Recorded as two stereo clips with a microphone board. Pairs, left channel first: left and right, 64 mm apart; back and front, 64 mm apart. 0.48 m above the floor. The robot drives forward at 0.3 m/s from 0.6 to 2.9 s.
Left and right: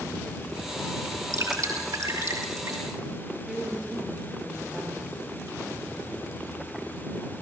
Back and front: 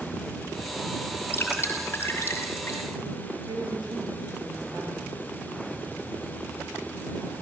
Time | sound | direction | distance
1.3 | dripping | 125° right | 5.5 m
3.5 | a woman speaking | straight ahead | 8.5 m